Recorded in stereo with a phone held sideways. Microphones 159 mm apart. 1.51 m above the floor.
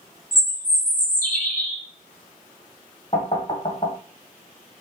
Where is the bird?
60° left (ahead or behind), 1.5 m.